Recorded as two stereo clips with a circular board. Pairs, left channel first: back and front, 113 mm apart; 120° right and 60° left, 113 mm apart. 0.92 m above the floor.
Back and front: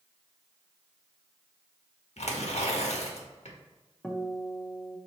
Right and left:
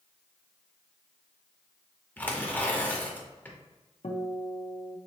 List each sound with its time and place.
2.2 s tearing paper: 165° left, 1.0 m
4.0 s a guitar: 100° right, 0.7 m